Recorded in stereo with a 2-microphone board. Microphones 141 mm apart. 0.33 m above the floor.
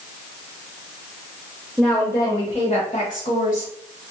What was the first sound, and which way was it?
A woman speaking, centre (ahead or behind).